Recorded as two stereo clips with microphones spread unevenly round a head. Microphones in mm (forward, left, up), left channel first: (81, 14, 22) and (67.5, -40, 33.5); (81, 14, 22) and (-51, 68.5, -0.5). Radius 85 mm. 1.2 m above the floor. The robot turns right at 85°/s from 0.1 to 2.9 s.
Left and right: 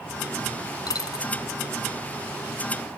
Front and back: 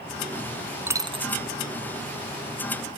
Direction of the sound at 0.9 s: 80° left.